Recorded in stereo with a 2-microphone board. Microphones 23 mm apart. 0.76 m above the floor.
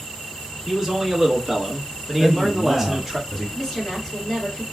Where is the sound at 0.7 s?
5° right (ahead or behind), 1.5 m.